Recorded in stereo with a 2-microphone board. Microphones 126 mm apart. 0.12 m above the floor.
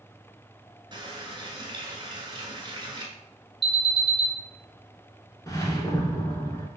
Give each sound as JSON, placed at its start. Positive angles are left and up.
{"t": 0.9, "sound": "a running tap", "side_deg": -35, "distance_m": 1.0}
{"t": 3.6, "sound": "an alarm", "side_deg": 0, "distance_m": 1.3}
{"t": 5.5, "sound": "a whoosh", "side_deg": 30, "distance_m": 0.7}